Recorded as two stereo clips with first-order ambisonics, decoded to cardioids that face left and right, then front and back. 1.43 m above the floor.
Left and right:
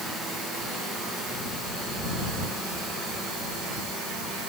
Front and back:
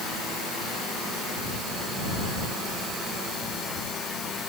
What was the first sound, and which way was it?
Only background noise.